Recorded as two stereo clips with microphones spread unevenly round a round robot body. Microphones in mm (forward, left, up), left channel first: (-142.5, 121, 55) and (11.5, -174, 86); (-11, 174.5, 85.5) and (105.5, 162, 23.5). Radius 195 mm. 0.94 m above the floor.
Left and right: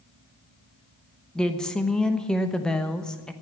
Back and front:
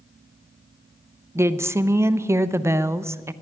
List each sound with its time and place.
1.4 s a woman speaking: 35° left, 1.0 m